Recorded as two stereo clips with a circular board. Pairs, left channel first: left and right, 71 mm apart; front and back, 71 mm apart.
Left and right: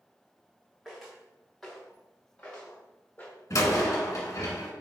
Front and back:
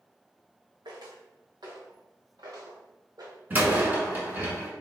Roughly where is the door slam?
Behind left.